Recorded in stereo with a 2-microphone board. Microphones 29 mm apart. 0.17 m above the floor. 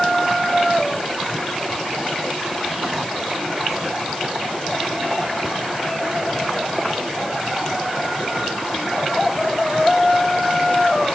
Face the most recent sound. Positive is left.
No sound to turn to.